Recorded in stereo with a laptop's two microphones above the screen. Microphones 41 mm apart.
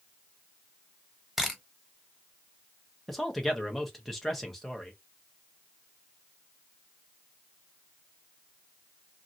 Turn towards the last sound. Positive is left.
turn(degrees=10)  # may be behind; listen again after turning